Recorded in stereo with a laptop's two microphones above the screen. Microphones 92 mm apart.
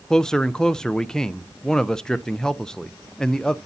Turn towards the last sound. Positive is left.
turn(degrees=5)  # may be behind; listen again after turning